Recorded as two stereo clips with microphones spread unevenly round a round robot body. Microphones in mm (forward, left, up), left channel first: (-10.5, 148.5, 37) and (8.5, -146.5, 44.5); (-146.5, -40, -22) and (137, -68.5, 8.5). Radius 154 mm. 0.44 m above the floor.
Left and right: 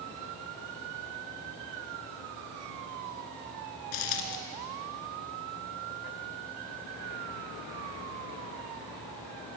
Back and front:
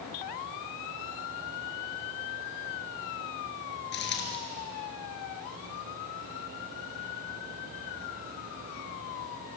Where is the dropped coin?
115° left, 2.5 m.